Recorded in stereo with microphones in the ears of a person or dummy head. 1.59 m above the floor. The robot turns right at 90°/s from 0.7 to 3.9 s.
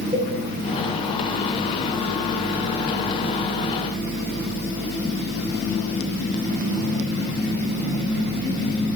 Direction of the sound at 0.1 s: 30° right (ahead or behind).